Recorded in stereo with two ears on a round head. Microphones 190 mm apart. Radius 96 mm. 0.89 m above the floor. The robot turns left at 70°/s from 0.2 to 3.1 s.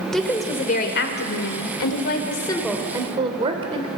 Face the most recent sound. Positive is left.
turn(degrees=-25)